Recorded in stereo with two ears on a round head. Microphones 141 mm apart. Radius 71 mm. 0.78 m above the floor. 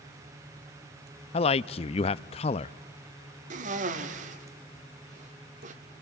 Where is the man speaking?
40° left (ahead or behind), 0.5 m.